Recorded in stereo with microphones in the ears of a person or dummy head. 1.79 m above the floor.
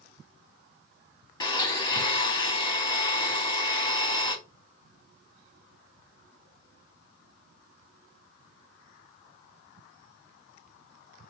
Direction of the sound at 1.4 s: 25° left (ahead or behind).